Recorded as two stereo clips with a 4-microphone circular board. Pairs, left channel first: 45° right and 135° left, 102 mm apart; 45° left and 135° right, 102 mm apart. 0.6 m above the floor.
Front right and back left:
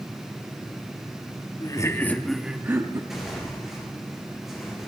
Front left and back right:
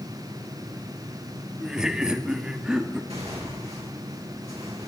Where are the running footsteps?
I don't hear running footsteps.